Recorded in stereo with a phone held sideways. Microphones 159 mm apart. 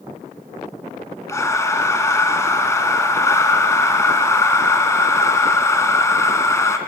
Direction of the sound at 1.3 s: 20° left (ahead or behind).